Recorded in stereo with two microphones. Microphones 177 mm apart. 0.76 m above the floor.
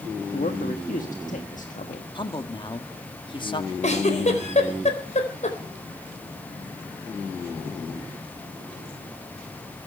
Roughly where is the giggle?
Left.